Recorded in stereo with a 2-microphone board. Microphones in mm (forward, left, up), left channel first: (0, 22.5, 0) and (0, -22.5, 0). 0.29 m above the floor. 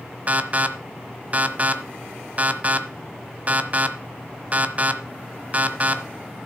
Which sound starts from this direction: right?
An alarm, at 0.3 s.